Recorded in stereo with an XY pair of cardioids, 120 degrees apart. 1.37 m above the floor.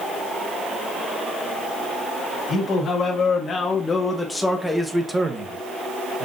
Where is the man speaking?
45° left, 1.9 m; by 6.2 s 50° right, 1.2 m.